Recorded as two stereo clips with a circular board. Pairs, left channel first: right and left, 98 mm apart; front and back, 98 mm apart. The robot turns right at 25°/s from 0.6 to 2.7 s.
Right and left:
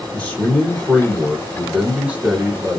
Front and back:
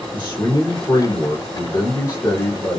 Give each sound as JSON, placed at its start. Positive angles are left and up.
{"t": 0.1, "sound": "a man speaking", "azimuth_deg": -20, "distance_m": 1.2}